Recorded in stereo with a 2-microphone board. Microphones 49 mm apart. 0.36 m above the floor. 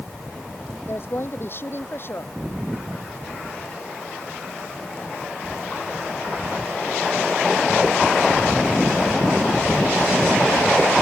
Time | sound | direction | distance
0.9 | a woman speaking | 50° left (ahead or behind) | ?